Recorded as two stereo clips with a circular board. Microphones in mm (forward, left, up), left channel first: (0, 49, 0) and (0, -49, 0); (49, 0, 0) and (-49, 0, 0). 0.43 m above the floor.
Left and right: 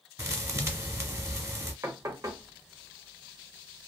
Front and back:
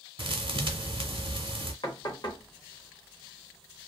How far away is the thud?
About 0.9 m.